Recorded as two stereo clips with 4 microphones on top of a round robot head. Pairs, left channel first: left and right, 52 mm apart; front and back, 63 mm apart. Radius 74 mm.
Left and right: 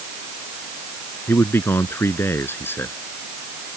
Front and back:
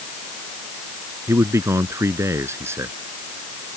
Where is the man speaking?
135° left.